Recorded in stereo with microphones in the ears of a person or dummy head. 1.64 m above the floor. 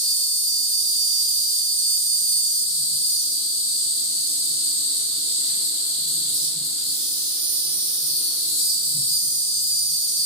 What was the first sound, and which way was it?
An insect, 30° left (ahead or behind).